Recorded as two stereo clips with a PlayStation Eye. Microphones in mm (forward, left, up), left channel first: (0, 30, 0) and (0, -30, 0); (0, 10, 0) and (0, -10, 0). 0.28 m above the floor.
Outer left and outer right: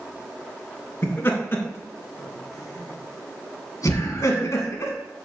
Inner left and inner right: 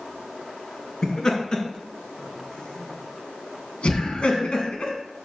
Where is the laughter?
35° left (ahead or behind), 3 m; by 4.9 s 60° left (ahead or behind), 2.5 m.